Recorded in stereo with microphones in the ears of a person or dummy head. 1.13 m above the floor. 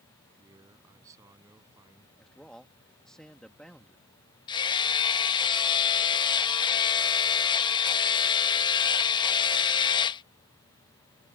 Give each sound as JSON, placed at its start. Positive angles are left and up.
{"t": 0.4, "sound": "a man speaking", "side_deg": -20}
{"t": 2.2, "sound": "a man speaking", "side_deg": 5}
{"t": 4.5, "sound": "hammering", "side_deg": 25}